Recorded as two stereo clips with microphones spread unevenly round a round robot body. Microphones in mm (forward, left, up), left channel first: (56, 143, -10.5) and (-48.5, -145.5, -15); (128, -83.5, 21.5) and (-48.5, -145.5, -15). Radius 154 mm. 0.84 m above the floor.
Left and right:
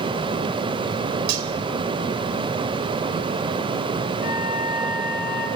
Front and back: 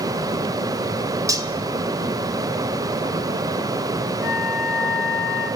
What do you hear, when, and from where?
1.3 s cutlery clinking: 85° right, 2.5 m
4.2 s a flute: 10° left, 5 m